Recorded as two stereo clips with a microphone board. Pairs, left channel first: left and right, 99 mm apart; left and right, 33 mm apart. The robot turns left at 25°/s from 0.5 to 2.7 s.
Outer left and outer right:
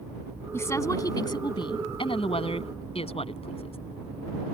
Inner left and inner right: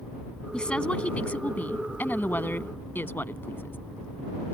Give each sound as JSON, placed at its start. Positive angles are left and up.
{"t": 0.5, "sound": "a woman speaking", "azimuth_deg": 155}